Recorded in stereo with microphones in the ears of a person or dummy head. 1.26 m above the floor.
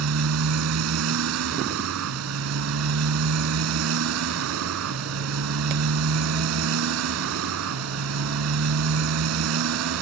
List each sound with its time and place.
0.0 s a motorcycle: 80° right